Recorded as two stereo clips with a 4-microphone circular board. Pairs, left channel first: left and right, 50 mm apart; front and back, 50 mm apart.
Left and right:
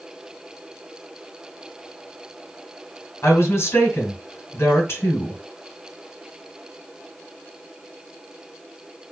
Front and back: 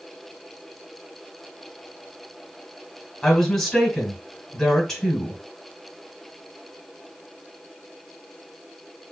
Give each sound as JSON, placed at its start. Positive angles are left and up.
{"t": 3.2, "sound": "a woman speaking", "azimuth_deg": 80, "distance_m": 2.5}